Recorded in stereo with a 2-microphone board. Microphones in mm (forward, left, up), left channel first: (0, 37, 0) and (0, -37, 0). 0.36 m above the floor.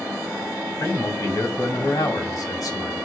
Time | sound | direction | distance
0.8 | a man speaking | 55° left (ahead or behind) | 2 m